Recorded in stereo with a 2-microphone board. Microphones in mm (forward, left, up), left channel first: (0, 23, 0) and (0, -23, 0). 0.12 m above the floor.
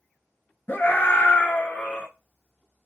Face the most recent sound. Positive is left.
turn(degrees=20)  # may be behind; listen again after turning